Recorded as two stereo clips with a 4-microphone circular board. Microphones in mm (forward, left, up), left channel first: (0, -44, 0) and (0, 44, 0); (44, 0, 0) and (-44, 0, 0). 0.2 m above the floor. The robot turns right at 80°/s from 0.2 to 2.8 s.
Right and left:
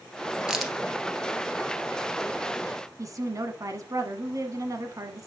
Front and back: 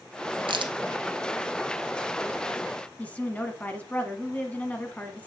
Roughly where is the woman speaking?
Ahead left.